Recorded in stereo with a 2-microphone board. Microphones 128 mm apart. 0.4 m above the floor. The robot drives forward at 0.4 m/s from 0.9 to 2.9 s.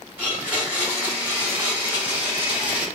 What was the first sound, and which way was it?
A blender, 15° right (ahead or behind).